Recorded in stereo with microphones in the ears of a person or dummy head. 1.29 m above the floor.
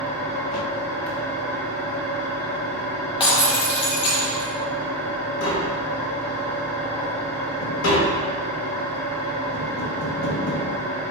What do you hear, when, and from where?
0.0 s an engine running: 5° left (ahead or behind), 0.8 m
3.2 s breaking glass: 25° left (ahead or behind), 0.8 m
5.4 s tapping: 75° left (ahead or behind), 0.7 m